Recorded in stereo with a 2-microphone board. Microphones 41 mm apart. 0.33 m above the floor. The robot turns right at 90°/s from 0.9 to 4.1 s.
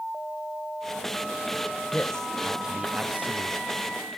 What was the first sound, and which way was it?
A man speaking, 135° left.